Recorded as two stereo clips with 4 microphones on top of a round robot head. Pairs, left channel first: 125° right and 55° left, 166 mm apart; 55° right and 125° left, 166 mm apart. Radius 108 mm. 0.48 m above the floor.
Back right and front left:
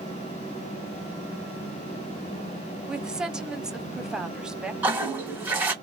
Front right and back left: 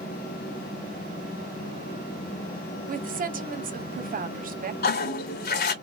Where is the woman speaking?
140° left, 1.2 m.